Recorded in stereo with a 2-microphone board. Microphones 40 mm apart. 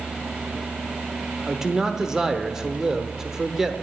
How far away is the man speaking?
About 1.0 m.